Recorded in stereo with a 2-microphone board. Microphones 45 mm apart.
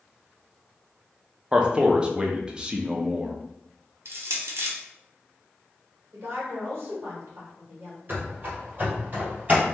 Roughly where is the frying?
I don't hear frying.